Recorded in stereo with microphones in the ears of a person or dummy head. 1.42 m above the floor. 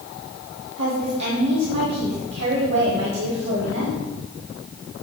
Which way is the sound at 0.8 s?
65° right (ahead or behind).